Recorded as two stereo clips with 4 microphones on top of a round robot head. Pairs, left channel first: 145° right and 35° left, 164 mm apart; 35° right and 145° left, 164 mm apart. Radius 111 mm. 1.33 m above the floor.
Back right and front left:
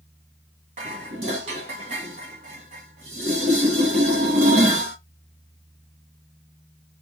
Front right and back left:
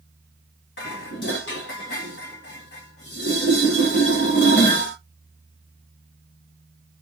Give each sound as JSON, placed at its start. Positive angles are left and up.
{"t": 0.8, "sound": "dishes clattering", "azimuth_deg": -15, "distance_m": 1.4}